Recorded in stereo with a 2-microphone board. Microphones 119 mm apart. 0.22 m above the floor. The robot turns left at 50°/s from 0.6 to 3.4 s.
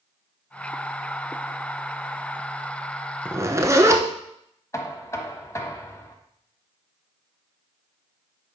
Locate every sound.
3.2 s a zipper: 15° right (ahead or behind), 0.9 m; by 4.0 s 25° right (ahead or behind), 0.9 m
4.7 s knocking: 25° left (ahead or behind), 1.0 m